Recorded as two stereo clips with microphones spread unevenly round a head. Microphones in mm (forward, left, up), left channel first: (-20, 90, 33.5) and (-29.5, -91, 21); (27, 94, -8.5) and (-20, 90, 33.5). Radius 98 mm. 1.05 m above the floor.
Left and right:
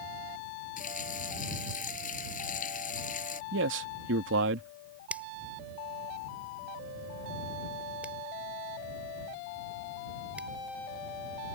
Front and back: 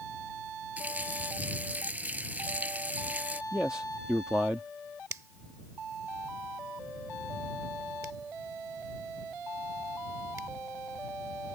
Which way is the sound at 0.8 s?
135° left.